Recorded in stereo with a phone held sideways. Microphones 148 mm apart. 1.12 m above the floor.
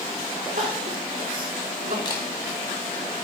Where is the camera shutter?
30° left (ahead or behind), 2 m.